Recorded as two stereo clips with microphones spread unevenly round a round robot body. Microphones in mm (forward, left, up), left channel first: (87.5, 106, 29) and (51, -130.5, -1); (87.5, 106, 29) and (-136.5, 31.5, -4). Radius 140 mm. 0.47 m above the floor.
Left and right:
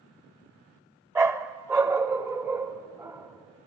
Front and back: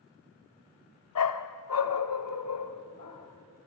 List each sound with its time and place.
1.1 s a dog barking: 20° right, 1.0 m